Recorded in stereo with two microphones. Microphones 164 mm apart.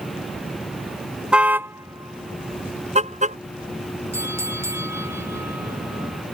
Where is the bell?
15° right (ahead or behind).